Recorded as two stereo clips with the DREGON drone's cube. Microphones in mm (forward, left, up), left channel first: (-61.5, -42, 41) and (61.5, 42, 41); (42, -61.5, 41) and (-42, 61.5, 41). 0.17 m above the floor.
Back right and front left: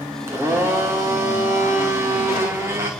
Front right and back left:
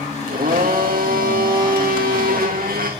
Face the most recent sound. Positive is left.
turn(degrees=105)